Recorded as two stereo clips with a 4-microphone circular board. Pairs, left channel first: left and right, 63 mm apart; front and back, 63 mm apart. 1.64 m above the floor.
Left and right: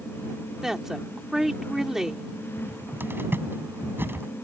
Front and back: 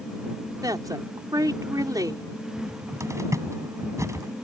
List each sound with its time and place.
0.6 s a woman speaking: 170° right
2.6 s a cupboard door: 145° right